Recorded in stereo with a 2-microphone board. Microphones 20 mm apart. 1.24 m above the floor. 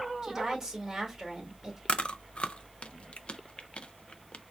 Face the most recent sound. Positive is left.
turn(degrees=70)  # may be behind; listen again after turning